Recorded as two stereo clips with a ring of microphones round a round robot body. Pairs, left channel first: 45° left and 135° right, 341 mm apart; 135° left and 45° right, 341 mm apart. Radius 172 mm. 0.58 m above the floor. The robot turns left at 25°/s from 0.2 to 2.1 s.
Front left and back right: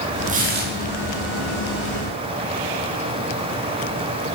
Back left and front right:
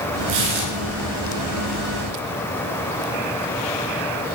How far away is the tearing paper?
About 5 m.